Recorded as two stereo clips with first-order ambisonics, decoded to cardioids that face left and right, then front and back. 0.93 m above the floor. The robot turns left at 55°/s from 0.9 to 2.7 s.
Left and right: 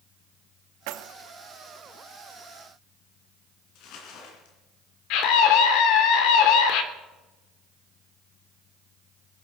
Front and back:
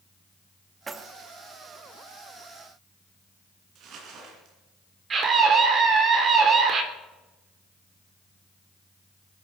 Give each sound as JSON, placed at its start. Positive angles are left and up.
{"t": 0.9, "sound": "keys jangling", "azimuth_deg": -105, "distance_m": 0.8}
{"t": 3.8, "sound": "crumpling", "azimuth_deg": 130, "distance_m": 3.5}
{"t": 5.1, "sound": "a scream", "azimuth_deg": 115, "distance_m": 3.0}